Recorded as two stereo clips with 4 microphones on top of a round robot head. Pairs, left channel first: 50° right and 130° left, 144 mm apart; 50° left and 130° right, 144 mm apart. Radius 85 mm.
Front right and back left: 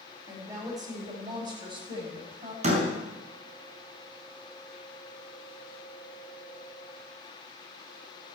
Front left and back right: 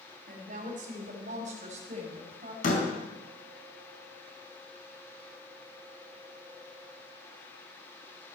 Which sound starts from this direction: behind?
A woman speaking, at 0.3 s.